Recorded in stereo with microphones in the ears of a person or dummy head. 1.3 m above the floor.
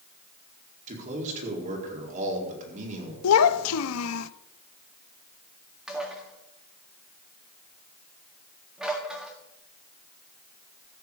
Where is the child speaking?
90° left, 0.6 m.